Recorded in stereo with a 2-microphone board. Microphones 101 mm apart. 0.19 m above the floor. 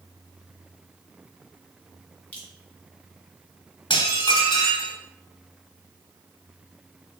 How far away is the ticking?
I don't hear ticking.